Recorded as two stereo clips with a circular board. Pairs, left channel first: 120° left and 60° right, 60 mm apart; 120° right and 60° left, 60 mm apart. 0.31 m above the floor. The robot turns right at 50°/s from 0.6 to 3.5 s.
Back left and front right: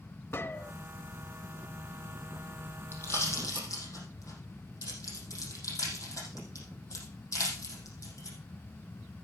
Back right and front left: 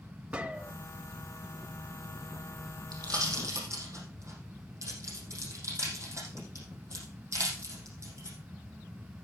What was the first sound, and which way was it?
A gunshot, 115° left.